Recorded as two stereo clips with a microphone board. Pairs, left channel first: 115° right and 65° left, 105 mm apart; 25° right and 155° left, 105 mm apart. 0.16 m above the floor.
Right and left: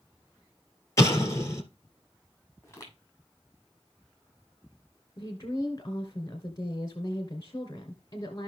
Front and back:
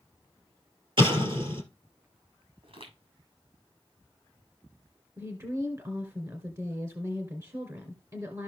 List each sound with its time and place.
1.0 s an explosion: 170° right, 2.5 m
2.6 s footsteps: straight behind, 6.5 m
5.2 s a woman speaking: 155° right, 2.0 m